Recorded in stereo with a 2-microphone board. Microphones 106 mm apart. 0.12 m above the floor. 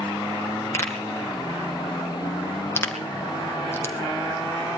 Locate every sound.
0.7 s a pop: 20° left (ahead or behind), 2 m